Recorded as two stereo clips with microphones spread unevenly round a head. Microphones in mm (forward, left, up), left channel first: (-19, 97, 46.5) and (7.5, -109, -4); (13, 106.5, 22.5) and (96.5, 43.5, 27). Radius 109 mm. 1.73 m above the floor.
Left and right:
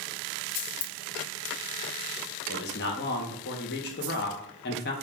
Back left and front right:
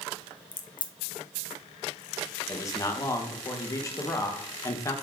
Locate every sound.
0.5 s a crack: 95° left, 0.6 m
2.5 s a man speaking: 85° left, 0.8 m